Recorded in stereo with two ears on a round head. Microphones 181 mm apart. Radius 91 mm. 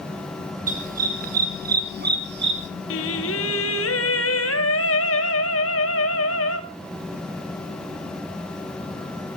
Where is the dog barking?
40° right (ahead or behind), 3 m; by 2.7 s 60° right (ahead or behind), 1.7 m.